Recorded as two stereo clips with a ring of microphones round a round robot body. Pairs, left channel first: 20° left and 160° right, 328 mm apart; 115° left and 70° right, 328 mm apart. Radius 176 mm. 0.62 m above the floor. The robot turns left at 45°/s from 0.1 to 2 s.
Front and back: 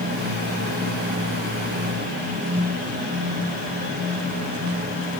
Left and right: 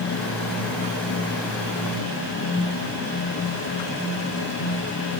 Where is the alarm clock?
I don't hear an alarm clock.